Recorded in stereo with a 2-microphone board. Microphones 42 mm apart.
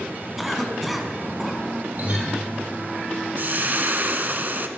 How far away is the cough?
About 1.6 m.